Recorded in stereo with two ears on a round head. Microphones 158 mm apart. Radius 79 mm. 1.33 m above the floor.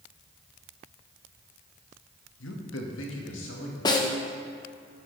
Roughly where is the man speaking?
Left.